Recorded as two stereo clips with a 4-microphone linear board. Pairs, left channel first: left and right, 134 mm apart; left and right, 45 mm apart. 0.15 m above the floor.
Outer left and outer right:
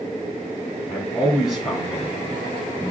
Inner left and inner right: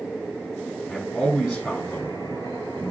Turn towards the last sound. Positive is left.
turn(degrees=20)  # may be behind; listen again after turning